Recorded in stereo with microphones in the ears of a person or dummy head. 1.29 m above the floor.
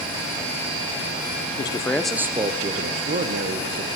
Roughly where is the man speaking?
Left.